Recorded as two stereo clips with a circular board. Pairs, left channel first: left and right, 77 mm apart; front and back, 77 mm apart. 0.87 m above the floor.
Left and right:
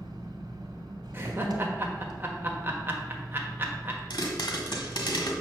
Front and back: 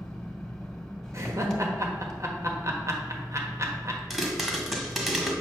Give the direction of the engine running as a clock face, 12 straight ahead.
3 o'clock.